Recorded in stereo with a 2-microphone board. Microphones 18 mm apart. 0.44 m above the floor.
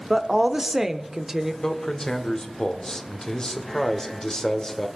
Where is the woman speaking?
25° right (ahead or behind), 0.9 m; by 1.5 s 15° right (ahead or behind), 1.1 m.